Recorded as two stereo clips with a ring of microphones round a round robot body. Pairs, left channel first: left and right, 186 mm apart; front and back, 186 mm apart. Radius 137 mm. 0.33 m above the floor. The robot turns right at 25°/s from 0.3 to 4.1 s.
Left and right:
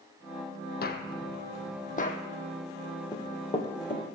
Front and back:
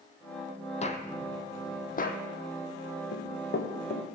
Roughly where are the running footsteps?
Ahead.